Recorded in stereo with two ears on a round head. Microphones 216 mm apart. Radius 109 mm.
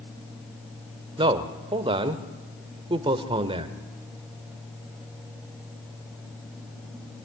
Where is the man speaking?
20° right (ahead or behind), 1.2 m.